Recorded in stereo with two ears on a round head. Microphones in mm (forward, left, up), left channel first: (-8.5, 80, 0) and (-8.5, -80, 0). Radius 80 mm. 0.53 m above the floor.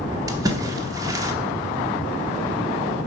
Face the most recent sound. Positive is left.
turn(degrees=-20)  # may be behind; listen again after turning